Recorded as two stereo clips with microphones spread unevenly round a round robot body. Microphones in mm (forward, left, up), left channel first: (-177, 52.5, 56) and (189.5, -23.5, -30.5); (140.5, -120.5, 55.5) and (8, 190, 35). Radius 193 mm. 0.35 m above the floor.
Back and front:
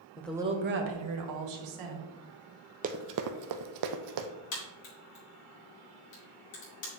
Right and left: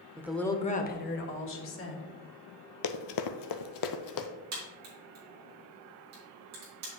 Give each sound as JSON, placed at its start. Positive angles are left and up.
{"t": 0.2, "sound": "a woman speaking", "azimuth_deg": 70, "distance_m": 0.8}
{"t": 2.8, "sound": "running footsteps", "azimuth_deg": -85, "distance_m": 0.6}
{"t": 4.5, "sound": "a crack", "azimuth_deg": 155, "distance_m": 3.5}